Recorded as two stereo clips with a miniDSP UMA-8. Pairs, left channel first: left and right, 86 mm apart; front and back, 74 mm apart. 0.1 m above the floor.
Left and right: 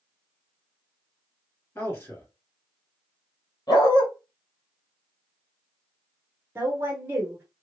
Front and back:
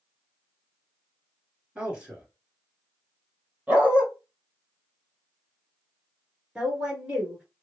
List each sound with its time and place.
1.8 s a man speaking: 115° left, 2.0 m
3.7 s a dog barking: 115° left, 1.2 m
6.5 s a woman speaking: 115° right, 1.2 m